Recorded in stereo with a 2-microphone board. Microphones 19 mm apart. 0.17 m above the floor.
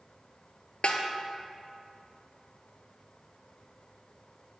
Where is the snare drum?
70° left (ahead or behind), 0.6 m.